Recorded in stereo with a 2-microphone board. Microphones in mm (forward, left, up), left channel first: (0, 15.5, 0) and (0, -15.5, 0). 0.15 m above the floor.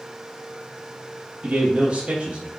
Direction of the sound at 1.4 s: 40° right (ahead or behind).